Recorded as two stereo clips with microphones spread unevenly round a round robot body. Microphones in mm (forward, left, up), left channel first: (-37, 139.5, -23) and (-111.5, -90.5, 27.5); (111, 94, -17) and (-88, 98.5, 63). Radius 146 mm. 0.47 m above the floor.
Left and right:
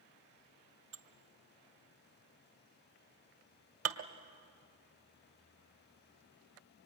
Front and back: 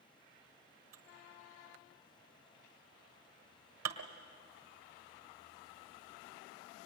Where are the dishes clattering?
135° right, 1.6 m.